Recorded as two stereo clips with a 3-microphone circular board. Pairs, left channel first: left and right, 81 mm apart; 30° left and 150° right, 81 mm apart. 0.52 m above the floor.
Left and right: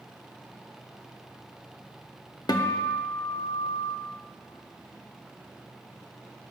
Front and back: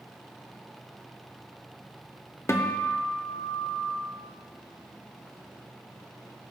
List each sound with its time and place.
2.5 s a guitar: 75° left, 0.6 m